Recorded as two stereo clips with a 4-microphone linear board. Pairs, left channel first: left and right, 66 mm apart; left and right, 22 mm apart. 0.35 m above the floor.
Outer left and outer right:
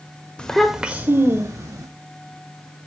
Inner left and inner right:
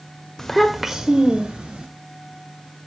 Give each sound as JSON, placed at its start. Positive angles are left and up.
{"t": 0.4, "sound": "a child speaking", "side_deg": 15, "distance_m": 0.7}